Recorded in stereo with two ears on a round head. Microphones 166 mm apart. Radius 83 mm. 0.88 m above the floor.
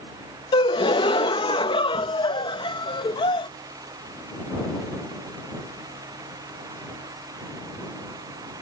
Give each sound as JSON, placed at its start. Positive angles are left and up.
{"t": 0.5, "sound": "a gasp", "side_deg": 25}